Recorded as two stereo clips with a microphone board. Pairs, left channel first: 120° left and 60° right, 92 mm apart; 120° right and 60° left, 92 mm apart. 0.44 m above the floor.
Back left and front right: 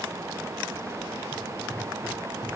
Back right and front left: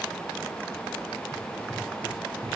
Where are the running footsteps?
160° left, 9.5 m.